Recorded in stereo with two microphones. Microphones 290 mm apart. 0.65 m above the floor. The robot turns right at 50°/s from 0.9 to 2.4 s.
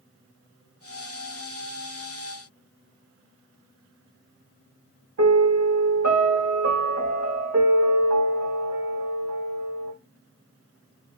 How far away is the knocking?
No knocking in this recording.